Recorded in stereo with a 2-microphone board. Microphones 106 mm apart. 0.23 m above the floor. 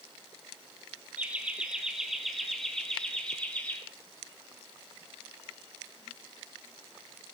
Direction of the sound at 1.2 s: 15° right (ahead or behind).